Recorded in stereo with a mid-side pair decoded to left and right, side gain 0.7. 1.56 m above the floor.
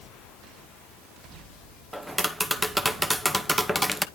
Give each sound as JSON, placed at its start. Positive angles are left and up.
{"t": 1.9, "sound": "tapping", "azimuth_deg": 0, "distance_m": 0.8}